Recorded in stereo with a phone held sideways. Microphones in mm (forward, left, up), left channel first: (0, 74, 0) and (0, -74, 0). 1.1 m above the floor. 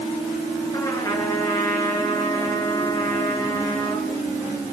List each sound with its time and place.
0.7 s a trumpet: 25° left (ahead or behind), 6.5 m